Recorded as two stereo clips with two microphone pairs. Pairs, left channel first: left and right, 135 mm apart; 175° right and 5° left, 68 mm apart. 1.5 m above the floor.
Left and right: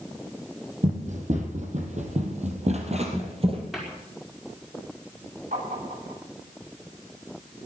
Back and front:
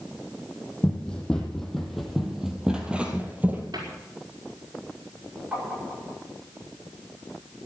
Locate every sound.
0.8 s running footsteps: 105° right, 3.5 m; by 3.6 s 55° right, 2.5 m
3.7 s a cupboard door: straight ahead, 5 m
5.5 s tapping: 65° right, 10 m